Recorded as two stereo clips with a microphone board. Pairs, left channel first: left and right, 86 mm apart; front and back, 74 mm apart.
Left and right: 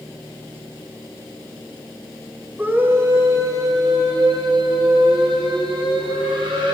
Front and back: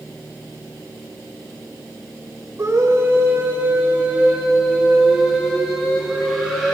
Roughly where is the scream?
Behind right.